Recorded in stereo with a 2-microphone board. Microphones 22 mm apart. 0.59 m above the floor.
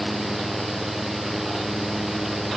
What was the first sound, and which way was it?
Only background noise.